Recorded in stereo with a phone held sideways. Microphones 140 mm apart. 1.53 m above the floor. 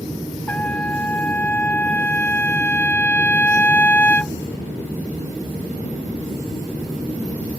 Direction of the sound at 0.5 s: 10° left (ahead or behind).